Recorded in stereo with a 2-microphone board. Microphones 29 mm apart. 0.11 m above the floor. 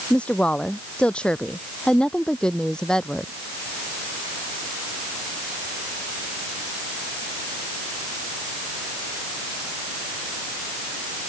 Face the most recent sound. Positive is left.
turn(degrees=20)  # may be behind; listen again after turning